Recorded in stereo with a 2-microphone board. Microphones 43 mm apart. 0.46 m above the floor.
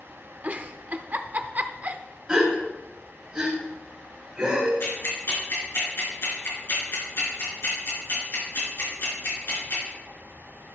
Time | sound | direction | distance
0.4 | a giggle | 35° right (ahead or behind) | 0.5 m
2.3 | a gasp | 15° right (ahead or behind) | 3.5 m
4.8 | ticking | 60° left (ahead or behind) | 3.5 m